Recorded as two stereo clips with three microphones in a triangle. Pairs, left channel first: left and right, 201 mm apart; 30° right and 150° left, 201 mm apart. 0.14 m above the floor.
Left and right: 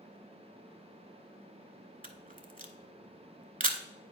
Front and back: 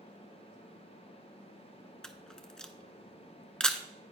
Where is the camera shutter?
115° right, 0.5 m.